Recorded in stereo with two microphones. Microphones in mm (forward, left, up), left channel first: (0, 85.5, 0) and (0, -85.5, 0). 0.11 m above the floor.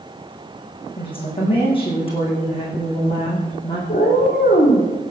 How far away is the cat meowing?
About 5 m.